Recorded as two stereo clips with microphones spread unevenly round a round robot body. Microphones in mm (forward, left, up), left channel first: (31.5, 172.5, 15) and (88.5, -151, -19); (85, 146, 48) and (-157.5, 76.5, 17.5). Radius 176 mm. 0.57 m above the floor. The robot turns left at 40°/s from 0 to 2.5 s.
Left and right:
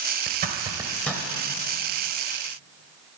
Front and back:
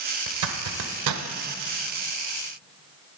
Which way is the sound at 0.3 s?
140° right.